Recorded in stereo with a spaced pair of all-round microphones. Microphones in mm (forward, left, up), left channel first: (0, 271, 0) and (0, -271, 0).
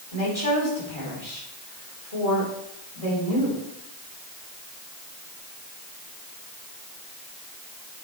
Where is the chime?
I don't hear a chime.